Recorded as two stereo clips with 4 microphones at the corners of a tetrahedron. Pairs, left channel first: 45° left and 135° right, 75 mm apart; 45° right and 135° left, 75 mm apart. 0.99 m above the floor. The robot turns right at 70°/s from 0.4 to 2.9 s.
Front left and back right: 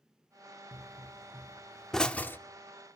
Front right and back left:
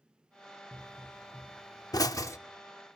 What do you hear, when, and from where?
0.7 s a pop: 125° right, 0.7 m; by 2.4 s 5° right, 0.7 m